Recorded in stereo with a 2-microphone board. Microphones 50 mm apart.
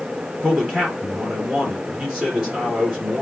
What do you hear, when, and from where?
0.4 s a man speaking: 20° right (ahead or behind), 2.5 m